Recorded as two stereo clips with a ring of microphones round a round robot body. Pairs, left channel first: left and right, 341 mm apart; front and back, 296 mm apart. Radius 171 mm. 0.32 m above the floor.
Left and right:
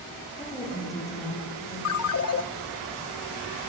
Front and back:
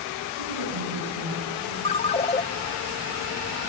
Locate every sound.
0.4 s a woman speaking: 170° left, 9 m
1.9 s a ringtone: 65° left, 0.8 m